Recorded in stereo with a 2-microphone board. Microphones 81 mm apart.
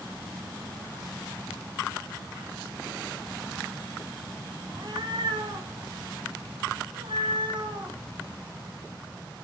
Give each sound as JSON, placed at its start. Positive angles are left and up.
{"t": 4.7, "sound": "a cat meowing", "side_deg": -60, "distance_m": 3.5}